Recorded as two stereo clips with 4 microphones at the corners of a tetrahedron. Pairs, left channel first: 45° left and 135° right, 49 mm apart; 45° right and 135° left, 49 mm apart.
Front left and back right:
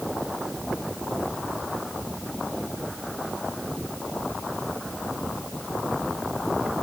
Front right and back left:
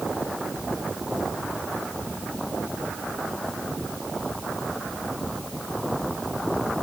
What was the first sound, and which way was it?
Only background noise.